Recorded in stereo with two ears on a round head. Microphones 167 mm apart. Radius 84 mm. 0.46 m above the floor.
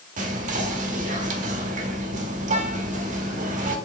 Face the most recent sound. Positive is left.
turn(degrees=-40)  # may be behind; listen again after turning